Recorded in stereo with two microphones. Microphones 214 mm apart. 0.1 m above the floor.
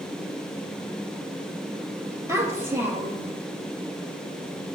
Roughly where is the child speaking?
Centre.